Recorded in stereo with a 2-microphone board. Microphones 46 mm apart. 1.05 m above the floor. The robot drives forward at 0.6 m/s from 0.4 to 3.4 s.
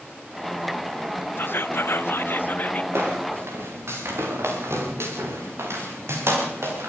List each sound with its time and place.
1.4 s whispering: 50° left (ahead or behind), 0.7 m; by 2.8 s 40° left (ahead or behind), 0.8 m
2.9 s footsteps: 75° right (ahead or behind), 8.5 m; by 6.9 s 80° right, 11 m